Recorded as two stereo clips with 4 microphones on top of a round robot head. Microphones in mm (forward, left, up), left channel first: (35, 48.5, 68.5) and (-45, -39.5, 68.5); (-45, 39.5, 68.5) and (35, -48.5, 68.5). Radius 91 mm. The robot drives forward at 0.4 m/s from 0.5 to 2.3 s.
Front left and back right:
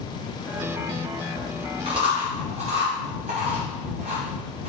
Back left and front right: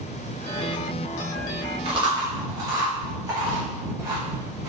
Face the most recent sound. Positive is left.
turn(degrees=-105)